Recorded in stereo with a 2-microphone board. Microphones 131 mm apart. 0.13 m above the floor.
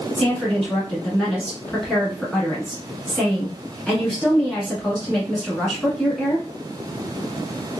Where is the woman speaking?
5° left (ahead or behind), 1.2 m.